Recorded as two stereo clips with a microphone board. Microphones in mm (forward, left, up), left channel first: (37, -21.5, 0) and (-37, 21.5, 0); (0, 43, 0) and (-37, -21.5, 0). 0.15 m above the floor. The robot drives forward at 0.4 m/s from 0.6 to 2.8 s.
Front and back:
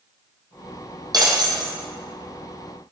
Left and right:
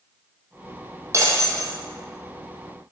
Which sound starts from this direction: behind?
Breaking glass, at 1.1 s.